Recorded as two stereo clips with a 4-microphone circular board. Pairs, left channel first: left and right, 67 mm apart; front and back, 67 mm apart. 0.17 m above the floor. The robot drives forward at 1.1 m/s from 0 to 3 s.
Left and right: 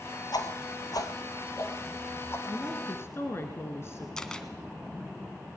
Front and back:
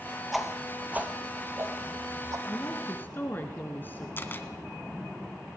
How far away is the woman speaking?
About 2.5 m.